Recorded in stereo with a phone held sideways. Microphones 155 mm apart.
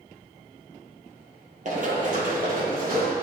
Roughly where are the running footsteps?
Right.